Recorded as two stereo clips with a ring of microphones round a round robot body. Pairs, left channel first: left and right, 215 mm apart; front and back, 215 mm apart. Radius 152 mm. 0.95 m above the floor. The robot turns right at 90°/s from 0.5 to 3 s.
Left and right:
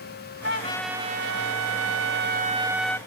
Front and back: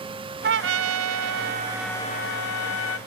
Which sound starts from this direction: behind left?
A trumpet, at 0.4 s.